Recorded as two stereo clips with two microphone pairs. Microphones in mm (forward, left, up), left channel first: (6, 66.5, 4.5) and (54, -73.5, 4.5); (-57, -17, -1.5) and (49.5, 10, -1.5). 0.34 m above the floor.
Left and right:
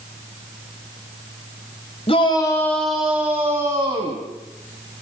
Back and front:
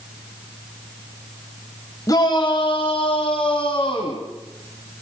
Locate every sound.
2.1 s a shout: 145° left, 1.5 m; by 4.2 s 130° right, 3 m